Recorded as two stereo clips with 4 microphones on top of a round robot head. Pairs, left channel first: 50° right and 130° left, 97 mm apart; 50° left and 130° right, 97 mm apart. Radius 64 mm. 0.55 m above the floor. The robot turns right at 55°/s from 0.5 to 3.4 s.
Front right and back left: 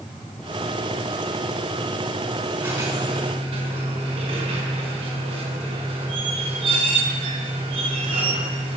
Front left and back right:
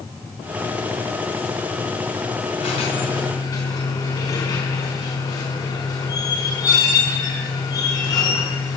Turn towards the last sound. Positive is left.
turn(degrees=100)